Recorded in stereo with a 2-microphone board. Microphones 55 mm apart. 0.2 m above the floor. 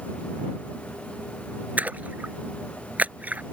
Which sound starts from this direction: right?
A splash, at 1.8 s.